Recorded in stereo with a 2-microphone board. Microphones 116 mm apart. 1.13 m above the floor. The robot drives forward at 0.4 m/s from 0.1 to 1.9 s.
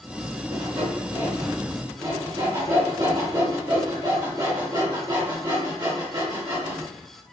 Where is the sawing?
55° right (ahead or behind), 0.9 m; by 7.3 s 35° right (ahead or behind), 1.3 m.